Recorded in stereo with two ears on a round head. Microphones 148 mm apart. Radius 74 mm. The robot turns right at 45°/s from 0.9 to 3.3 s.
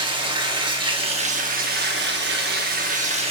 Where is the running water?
145° right, 1.1 m; by 3.3 s 40° right, 1.1 m.